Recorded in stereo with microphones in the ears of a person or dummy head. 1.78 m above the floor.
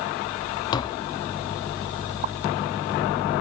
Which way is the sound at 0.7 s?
35° left (ahead or behind).